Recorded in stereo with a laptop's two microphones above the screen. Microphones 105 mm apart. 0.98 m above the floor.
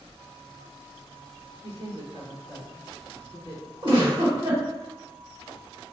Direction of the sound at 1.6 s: 80° right.